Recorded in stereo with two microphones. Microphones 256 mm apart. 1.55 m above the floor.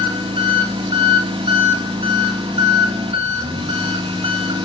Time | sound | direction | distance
0.0 | an engine running | 20° right (ahead or behind) | 1.7 m